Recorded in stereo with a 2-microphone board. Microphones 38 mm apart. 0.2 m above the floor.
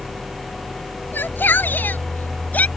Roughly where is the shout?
Left.